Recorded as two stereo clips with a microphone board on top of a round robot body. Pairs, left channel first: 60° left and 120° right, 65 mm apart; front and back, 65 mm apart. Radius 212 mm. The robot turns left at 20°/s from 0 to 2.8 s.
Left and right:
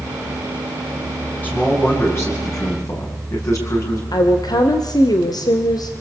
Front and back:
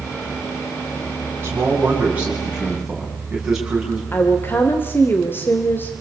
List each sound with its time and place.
1.4 s a man speaking: 125° left, 8 m; by 4.0 s 95° left, 8 m
4.1 s a woman speaking: 55° left, 2 m